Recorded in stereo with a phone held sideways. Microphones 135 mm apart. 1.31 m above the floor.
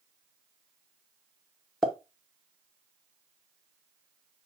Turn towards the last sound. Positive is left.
turn(degrees=5)  # may be behind; listen again after turning